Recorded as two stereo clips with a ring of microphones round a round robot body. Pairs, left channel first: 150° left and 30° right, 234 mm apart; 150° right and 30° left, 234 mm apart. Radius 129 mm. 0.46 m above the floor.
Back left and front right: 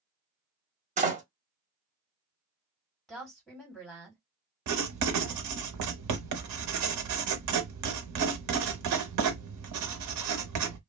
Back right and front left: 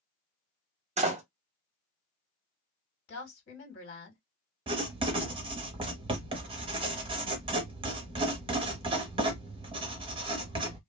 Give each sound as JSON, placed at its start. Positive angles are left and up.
{"t": 1.0, "sound": "a door slam", "azimuth_deg": -5, "distance_m": 1.0}
{"t": 3.1, "sound": "a woman speaking", "azimuth_deg": -125, "distance_m": 1.9}
{"t": 4.7, "sound": "writing", "azimuth_deg": -40, "distance_m": 0.8}